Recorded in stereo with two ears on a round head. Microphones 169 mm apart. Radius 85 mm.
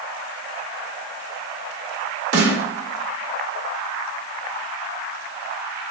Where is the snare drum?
65° right (ahead or behind), 1.4 m.